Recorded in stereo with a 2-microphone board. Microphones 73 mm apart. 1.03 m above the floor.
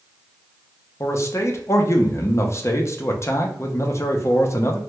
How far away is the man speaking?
About 0.5 m.